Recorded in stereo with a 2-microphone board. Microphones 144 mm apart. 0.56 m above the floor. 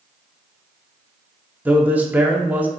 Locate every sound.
1.6 s a man speaking: 15° right (ahead or behind), 0.9 m